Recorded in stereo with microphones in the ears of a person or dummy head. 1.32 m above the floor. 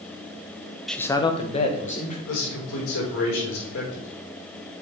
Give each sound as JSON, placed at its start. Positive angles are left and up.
{"t": 0.9, "sound": "a man speaking", "side_deg": -5, "distance_m": 0.5}
{"t": 2.3, "sound": "a man speaking", "side_deg": 90, "distance_m": 4.0}